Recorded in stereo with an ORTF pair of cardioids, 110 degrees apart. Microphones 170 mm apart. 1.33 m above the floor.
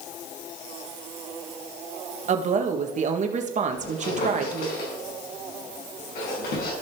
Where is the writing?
No writing in this recording.